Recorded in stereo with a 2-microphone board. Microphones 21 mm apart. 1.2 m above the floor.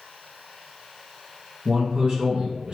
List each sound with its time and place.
1.6 s a man speaking: 75° right (ahead or behind), 1.1 m